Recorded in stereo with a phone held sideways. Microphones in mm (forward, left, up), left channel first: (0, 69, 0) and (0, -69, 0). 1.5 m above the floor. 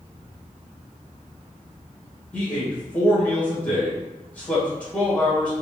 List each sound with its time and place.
2.3 s a man speaking: 10° left (ahead or behind), 1.8 m